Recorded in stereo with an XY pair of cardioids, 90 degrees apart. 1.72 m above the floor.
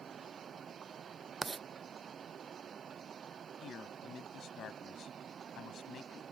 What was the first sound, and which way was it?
Writing, 30° right.